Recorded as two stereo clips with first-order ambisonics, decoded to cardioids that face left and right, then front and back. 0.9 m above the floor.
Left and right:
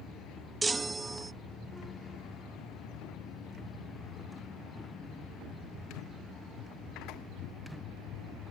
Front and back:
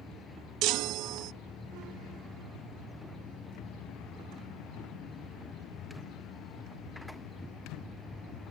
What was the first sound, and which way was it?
A chime, 165° right.